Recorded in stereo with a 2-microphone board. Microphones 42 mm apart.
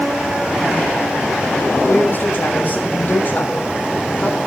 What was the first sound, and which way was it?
A man speaking, 55° left (ahead or behind).